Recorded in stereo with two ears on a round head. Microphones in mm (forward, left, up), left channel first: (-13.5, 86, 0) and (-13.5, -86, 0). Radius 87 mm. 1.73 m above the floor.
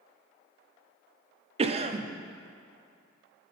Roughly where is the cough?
Right.